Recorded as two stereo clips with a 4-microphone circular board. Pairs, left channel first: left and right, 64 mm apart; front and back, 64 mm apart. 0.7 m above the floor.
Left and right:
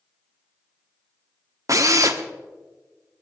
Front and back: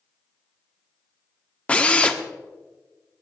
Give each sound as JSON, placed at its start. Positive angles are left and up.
{"t": 1.7, "sound": "a drill", "azimuth_deg": -70, "distance_m": 1.1}